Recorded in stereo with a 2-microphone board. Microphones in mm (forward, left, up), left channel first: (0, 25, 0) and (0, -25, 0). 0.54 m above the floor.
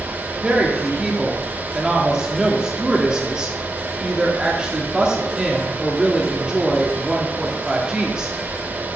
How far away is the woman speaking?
About 1.0 m.